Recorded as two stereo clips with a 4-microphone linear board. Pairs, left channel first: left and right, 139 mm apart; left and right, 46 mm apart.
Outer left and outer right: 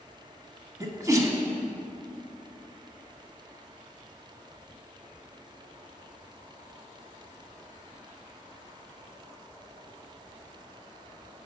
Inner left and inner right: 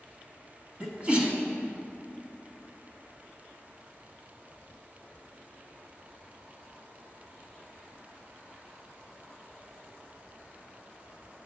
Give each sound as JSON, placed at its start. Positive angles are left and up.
{"t": 0.8, "sound": "a sneeze", "side_deg": -25, "distance_m": 1.0}